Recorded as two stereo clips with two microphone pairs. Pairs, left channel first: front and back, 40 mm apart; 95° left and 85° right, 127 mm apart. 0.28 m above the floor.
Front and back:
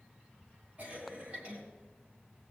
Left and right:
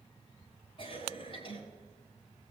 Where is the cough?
135° left, 3 m.